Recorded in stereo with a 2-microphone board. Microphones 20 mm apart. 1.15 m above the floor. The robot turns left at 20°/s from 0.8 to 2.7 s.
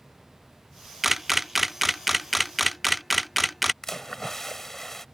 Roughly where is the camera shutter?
Centre.